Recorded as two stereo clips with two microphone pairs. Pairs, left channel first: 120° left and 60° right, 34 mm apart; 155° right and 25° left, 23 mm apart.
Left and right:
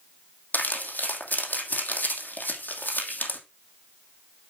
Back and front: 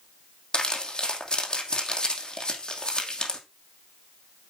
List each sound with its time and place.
0.5 s crumpling: 150° left, 2.5 m